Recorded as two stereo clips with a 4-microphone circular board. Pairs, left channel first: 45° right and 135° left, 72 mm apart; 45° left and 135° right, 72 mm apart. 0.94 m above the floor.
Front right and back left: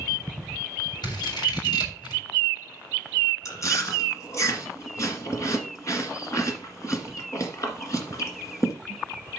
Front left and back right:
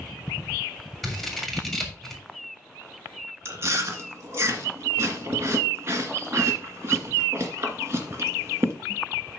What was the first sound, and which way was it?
Scissors, 45° right.